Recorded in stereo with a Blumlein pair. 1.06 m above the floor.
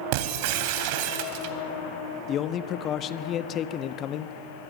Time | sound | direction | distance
0.1 | breaking glass | 45° right | 2.5 m
2.3 | a man speaking | 30° left | 1.3 m